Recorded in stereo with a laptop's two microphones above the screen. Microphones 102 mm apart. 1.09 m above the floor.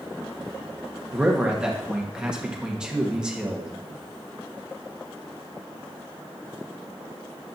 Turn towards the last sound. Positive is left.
turn(degrees=-10)  # may be behind; listen again after turning